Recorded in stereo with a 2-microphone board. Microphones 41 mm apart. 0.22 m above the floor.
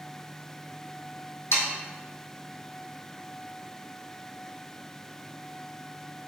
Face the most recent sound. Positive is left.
turn(degrees=80)